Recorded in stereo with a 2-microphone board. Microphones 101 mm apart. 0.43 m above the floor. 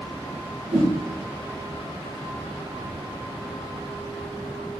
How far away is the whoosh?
About 6.5 m.